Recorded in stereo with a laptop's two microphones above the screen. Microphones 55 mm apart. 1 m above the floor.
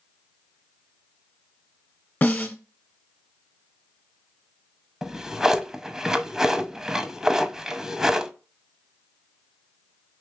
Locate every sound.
2.2 s a snare drum: 40° left (ahead or behind), 1.2 m
5.0 s a drawer: 10° right (ahead or behind), 0.6 m